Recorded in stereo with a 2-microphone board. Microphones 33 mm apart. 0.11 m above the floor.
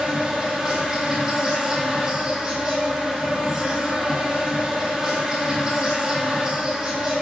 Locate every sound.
0.0 s an insect: 25° right (ahead or behind), 1.0 m